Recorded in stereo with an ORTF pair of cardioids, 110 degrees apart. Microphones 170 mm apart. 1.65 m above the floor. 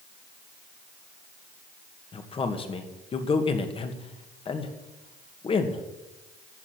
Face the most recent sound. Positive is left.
turn(degrees=35)